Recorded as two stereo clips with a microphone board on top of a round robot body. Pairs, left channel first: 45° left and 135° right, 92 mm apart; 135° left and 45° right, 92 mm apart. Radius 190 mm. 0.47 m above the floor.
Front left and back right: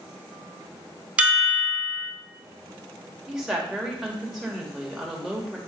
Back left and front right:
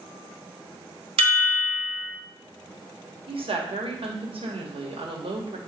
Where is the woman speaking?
50° right, 3 m.